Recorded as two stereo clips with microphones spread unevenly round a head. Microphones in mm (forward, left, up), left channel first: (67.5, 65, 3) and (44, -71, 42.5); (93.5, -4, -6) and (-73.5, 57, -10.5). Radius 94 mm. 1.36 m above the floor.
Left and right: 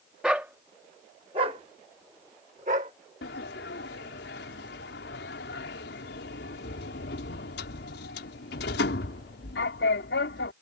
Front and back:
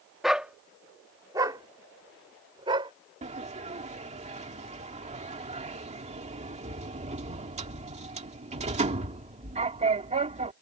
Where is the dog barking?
110° right; by 2.9 s 135° right.